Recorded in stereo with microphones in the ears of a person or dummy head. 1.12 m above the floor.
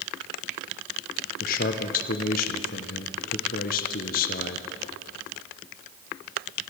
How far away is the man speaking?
About 0.8 m.